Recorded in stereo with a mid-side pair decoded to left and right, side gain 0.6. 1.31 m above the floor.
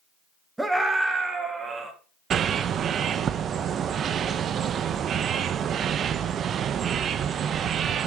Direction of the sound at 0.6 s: 10° right.